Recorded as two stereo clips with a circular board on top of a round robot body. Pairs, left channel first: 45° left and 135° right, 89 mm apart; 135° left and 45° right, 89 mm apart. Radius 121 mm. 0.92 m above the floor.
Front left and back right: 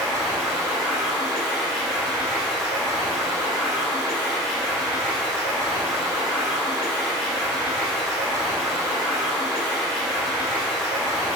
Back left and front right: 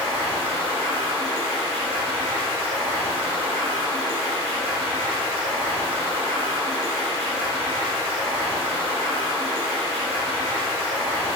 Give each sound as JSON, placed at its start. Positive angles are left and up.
{"t": 0.0, "sound": "running water", "azimuth_deg": -40, "distance_m": 0.8}